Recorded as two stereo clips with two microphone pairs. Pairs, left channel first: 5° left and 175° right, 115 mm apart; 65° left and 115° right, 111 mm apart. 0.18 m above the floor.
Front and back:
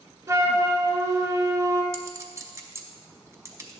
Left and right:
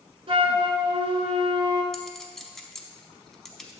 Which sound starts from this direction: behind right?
A flute, at 0.3 s.